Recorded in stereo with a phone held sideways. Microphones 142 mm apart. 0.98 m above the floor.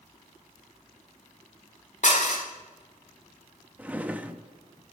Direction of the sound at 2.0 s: 60° left (ahead or behind).